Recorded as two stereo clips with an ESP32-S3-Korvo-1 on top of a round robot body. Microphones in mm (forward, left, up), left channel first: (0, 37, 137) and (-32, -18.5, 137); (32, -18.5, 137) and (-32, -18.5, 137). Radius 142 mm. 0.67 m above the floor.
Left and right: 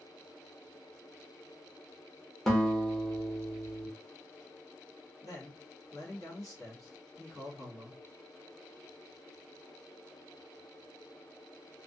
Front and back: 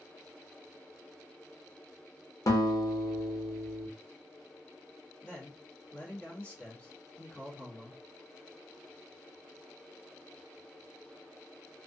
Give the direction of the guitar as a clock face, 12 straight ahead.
1 o'clock.